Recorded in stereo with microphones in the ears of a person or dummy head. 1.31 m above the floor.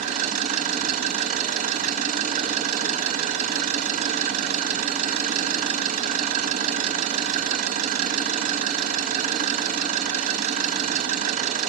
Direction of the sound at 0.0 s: 50° right (ahead or behind).